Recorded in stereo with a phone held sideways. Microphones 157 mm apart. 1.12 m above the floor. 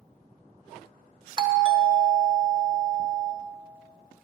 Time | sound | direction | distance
1.4 | a doorbell | 30° right (ahead or behind) | 1.1 m